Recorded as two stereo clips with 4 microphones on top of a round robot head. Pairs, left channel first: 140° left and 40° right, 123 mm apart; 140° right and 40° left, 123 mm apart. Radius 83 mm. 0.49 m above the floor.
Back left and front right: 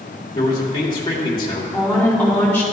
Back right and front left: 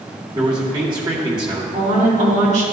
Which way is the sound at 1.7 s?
65° left.